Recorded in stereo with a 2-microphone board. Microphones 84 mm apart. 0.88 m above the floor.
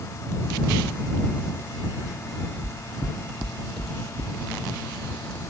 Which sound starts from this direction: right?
Footsteps, at 2.6 s.